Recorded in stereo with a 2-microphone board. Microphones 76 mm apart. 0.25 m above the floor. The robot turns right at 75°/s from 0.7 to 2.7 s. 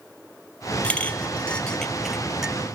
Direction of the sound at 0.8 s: 20° left (ahead or behind).